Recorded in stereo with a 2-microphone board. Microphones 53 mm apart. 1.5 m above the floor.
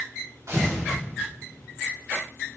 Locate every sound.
0.5 s tearing paper: 65° right (ahead or behind), 5 m